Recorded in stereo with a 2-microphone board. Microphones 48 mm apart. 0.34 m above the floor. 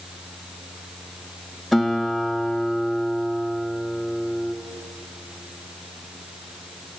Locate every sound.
1.7 s a guitar: centre (ahead or behind), 1.8 m